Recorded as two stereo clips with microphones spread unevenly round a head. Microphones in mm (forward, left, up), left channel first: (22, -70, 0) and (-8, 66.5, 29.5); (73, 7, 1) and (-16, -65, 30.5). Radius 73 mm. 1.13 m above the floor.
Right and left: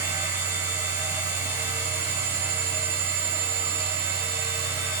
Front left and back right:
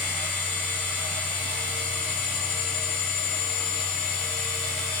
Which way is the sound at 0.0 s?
35° left.